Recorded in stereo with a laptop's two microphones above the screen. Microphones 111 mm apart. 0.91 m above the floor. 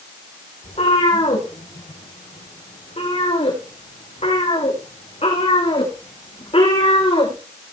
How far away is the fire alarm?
No fire alarm in this recording.